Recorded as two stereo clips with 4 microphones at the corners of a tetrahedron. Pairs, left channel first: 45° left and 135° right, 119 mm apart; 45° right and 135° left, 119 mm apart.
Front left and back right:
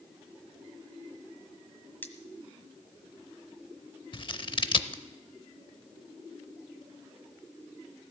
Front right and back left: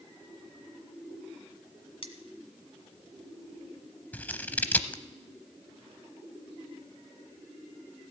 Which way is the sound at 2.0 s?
25° right.